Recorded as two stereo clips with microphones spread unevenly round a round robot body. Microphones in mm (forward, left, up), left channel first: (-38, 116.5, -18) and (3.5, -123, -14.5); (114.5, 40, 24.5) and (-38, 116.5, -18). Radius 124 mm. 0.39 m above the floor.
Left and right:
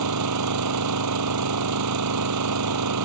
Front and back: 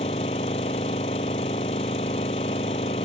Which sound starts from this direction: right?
An engine running, at 0.0 s.